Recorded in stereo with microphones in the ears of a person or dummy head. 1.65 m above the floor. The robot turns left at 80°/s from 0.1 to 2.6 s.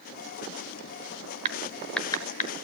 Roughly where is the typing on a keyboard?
Right.